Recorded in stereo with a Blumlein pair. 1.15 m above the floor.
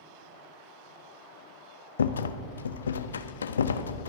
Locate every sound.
2.0 s a rattle: 70° left, 0.5 m